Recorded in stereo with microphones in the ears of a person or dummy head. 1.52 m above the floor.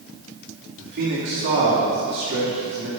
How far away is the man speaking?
About 2.5 m.